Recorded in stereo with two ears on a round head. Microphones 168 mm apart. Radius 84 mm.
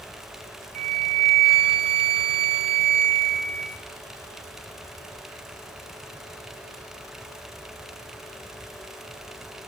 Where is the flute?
35° right (ahead or behind), 1.4 m.